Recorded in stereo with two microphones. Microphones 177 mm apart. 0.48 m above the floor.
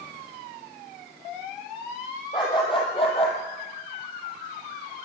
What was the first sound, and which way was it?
A dog barking, 25° left (ahead or behind).